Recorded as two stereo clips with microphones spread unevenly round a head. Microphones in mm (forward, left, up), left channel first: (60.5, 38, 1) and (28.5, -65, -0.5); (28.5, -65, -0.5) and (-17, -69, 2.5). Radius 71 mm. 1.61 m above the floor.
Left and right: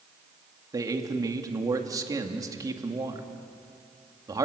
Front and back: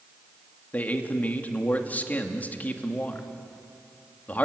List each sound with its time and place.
0.7 s a man speaking: 50° right, 2.5 m